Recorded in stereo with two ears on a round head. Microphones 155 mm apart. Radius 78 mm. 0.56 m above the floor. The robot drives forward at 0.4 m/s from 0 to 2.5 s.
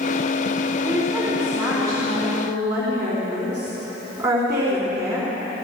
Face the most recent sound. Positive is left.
turn(degrees=-5)  # may be behind; listen again after turning